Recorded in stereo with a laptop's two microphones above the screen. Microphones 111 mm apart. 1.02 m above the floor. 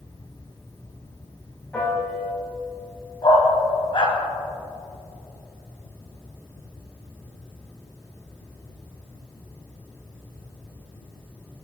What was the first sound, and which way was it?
A fan, 20° left (ahead or behind).